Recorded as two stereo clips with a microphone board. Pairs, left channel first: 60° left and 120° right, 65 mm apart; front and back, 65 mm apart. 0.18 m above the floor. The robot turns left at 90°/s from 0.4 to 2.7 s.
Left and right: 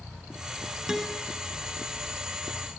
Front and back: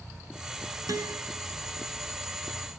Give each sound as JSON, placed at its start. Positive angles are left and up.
{"t": 0.9, "sound": "a guitar", "azimuth_deg": 160, "distance_m": 2.0}